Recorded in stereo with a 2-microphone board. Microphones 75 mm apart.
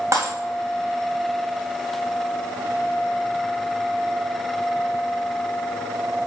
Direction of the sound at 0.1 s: 45° right (ahead or behind).